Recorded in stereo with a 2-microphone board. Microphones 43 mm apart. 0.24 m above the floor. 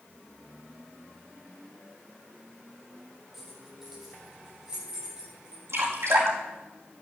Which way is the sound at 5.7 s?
80° right.